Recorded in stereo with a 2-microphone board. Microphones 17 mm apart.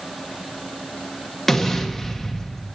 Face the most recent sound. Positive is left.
turn(degrees=15)  # may be behind; listen again after turning